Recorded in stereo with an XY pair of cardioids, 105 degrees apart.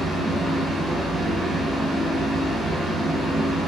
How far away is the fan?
About 1.0 m.